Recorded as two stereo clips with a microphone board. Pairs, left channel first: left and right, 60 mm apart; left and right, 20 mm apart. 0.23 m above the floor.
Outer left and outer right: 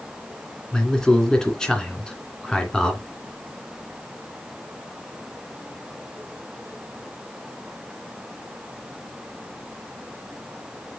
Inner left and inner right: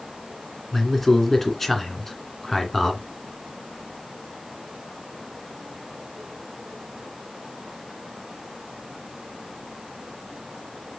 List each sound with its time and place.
0.7 s a man speaking: 10° left (ahead or behind), 2.5 m